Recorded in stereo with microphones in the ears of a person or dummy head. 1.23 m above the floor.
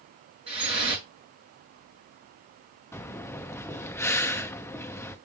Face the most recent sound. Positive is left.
turn(degrees=10)  # may be behind; listen again after turning